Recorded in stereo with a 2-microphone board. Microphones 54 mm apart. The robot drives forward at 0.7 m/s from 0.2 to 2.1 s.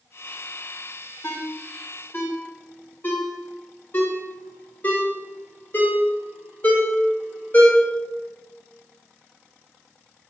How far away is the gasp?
No gasp in this recording.